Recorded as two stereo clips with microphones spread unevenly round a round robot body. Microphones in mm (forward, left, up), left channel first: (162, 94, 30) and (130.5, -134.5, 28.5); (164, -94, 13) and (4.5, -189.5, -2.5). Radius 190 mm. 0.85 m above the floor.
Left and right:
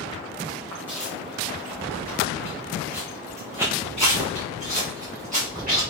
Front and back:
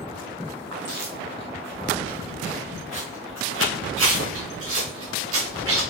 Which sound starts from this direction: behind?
Footsteps, at 0.7 s.